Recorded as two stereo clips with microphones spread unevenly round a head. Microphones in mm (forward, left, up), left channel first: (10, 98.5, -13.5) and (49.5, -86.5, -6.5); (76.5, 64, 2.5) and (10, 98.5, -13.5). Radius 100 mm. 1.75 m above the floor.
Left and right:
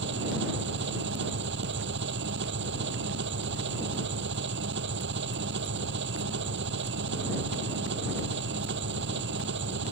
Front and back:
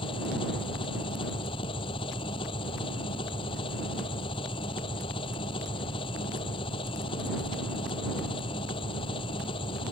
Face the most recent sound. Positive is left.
turn(degrees=-50)